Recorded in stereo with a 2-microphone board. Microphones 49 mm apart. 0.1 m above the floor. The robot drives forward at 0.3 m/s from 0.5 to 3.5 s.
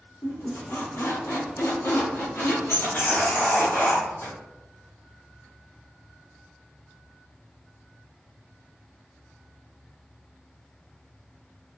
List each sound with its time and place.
0.2 s a squeak: 65° left (ahead or behind), 1.3 m; by 4.3 s 50° left (ahead or behind), 1.5 m